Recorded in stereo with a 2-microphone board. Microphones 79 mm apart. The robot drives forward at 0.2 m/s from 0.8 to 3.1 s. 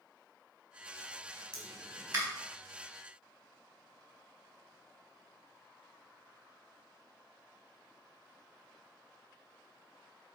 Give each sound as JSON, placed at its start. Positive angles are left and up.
{"t": 1.5, "sound": "a pop", "side_deg": -50, "distance_m": 2.5}